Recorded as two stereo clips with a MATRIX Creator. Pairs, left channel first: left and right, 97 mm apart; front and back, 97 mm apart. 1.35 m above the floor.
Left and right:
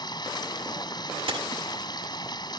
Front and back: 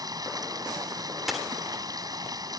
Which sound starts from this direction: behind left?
Running water, at 0.0 s.